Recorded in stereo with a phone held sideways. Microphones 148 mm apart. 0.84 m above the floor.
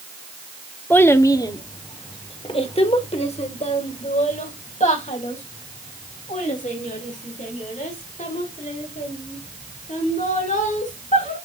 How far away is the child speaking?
About 0.7 m.